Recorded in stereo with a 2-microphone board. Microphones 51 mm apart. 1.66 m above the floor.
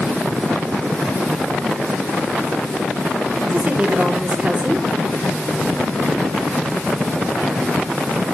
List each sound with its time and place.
3.5 s a woman speaking: 25° right (ahead or behind), 4.5 m